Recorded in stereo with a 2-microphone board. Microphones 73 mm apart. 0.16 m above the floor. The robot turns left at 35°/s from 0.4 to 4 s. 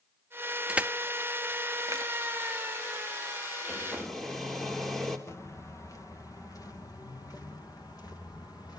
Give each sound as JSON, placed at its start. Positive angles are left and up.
{"t": 0.7, "sound": "crushing", "side_deg": -15, "distance_m": 0.7}
{"t": 3.7, "sound": "a hair dryer", "side_deg": -5, "distance_m": 3.5}
{"t": 5.3, "sound": "footsteps", "side_deg": 40, "distance_m": 2.5}